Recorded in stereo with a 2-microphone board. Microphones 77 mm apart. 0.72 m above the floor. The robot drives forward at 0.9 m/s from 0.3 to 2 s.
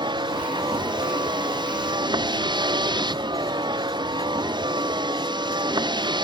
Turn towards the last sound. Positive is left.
turn(degrees=-80)